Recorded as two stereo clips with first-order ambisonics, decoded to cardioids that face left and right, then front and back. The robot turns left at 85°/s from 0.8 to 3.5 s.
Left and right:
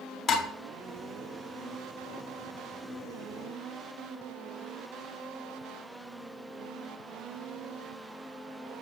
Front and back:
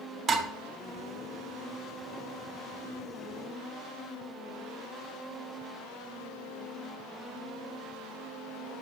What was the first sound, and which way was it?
Dishes clattering, 130° left.